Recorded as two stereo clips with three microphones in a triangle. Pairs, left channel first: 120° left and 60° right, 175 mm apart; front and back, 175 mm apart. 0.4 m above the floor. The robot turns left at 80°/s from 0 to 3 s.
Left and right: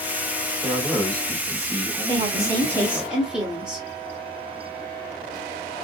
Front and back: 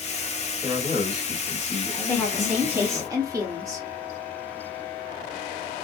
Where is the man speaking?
125° right, 1.7 m; by 3.1 s 40° left, 1.7 m.